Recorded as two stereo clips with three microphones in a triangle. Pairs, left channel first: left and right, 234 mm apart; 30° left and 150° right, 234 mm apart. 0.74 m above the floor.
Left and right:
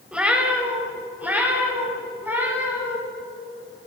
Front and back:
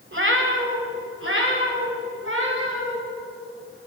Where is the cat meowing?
175° right, 1.3 m; by 3.0 s 170° right, 3 m.